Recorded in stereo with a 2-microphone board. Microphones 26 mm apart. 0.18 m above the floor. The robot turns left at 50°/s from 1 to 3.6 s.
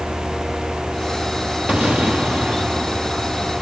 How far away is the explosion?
About 2.5 m.